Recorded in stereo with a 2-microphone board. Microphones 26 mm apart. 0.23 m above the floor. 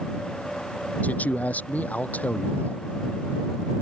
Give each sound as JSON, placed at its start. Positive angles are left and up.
{"t": 1.0, "sound": "a man speaking", "side_deg": 85}